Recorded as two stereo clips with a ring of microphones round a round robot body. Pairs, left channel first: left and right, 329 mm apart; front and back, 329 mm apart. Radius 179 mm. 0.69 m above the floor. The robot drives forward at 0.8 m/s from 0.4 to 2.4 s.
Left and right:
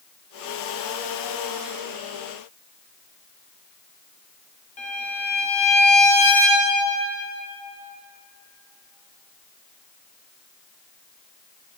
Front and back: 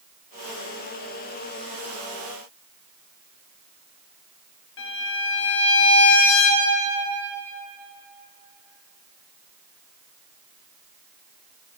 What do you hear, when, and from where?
4.8 s a violin: 30° left, 1.3 m